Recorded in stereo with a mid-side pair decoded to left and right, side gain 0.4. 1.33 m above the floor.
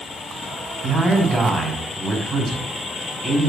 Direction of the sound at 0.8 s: 30° right.